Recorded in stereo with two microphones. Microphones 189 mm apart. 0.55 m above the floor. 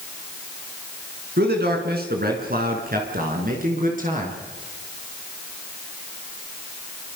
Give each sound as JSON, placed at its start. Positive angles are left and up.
{"t": 1.4, "sound": "a man speaking", "side_deg": -60, "distance_m": 5.5}